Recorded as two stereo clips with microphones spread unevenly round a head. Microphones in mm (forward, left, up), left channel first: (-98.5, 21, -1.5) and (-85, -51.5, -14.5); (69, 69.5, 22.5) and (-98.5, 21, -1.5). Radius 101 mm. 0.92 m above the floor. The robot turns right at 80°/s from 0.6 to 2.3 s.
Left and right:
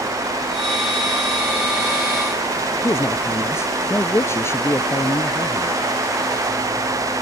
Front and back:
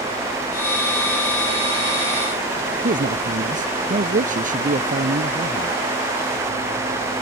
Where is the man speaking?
155° left.